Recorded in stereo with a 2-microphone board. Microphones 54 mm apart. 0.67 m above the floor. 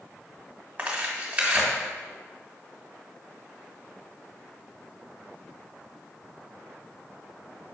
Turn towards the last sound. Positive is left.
turn(degrees=-25)  # may be behind; listen again after turning